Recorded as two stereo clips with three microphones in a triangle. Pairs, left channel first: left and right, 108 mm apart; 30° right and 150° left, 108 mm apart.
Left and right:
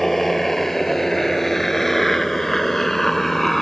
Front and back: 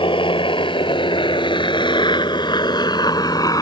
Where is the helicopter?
5° left.